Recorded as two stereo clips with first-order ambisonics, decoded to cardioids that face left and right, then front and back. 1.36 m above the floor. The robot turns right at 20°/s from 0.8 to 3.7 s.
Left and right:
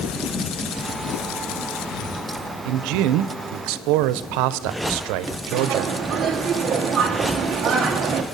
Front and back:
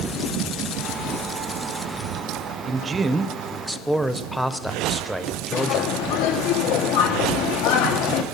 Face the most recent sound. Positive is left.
turn(degrees=-25)